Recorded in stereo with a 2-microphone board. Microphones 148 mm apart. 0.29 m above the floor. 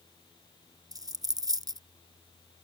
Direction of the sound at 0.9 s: 25° right (ahead or behind).